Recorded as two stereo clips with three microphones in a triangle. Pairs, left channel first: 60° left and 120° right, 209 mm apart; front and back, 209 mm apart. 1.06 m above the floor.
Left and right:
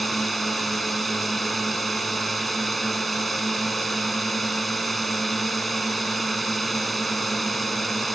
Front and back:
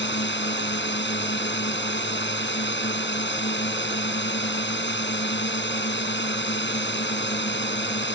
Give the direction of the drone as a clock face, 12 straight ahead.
1 o'clock.